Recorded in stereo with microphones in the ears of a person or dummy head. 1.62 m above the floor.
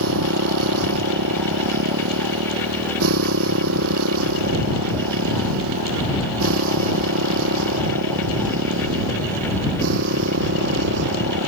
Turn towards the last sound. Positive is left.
turn(degrees=-70)  # may be behind; listen again after turning